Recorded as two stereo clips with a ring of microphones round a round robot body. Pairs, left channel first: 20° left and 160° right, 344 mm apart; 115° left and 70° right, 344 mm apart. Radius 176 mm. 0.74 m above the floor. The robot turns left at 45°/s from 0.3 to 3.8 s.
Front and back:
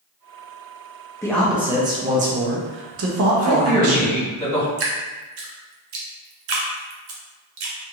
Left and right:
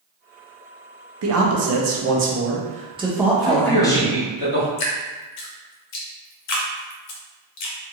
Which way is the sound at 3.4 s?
115° right.